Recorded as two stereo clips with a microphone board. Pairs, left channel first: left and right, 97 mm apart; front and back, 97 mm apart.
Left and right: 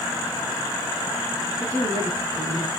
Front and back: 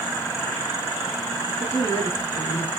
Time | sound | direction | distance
1.6 | a woman speaking | 50° right | 2 m